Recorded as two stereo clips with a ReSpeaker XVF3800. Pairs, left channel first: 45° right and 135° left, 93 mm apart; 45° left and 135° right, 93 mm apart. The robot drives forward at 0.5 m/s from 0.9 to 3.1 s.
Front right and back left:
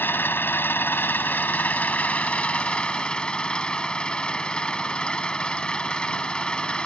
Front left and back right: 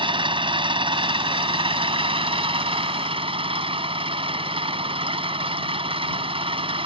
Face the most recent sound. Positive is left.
turn(degrees=-125)